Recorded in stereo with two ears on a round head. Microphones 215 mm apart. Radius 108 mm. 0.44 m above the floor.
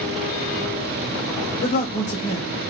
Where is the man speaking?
30° left (ahead or behind), 1.1 m.